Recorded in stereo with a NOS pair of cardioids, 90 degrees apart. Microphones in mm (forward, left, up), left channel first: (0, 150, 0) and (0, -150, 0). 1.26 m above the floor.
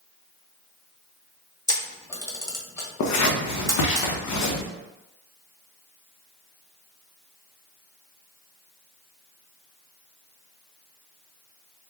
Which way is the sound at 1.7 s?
10° left.